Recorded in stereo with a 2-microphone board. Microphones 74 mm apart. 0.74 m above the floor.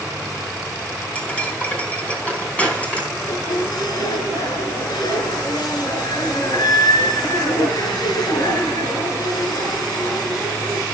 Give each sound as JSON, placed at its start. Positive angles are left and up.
{"t": 1.1, "sound": "cutlery clinking", "side_deg": 20, "distance_m": 4.0}
{"t": 3.1, "sound": "a squeak", "side_deg": 70, "distance_m": 3.5}